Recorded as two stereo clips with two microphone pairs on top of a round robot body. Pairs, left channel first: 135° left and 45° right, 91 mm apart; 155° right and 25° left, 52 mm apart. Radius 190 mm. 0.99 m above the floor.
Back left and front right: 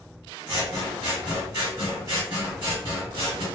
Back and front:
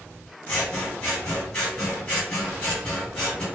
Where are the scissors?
95° right, 1.1 m.